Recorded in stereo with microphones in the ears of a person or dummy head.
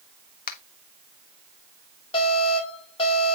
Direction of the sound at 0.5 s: 50° left (ahead or behind).